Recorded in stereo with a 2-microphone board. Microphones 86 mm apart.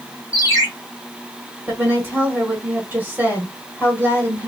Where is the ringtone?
30° left (ahead or behind), 1.3 m.